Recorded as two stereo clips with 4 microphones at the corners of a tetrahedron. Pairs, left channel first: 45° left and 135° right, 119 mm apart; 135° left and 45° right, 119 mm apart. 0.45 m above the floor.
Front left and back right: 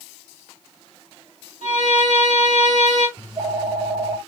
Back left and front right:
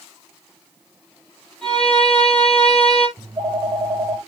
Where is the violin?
140° right, 8 m.